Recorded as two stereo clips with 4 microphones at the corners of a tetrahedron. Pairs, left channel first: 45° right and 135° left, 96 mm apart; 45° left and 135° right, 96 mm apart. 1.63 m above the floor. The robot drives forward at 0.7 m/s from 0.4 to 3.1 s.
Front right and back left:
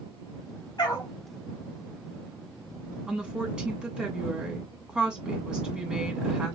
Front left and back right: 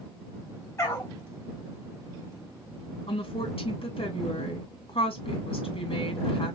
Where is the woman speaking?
50° left, 2.5 m.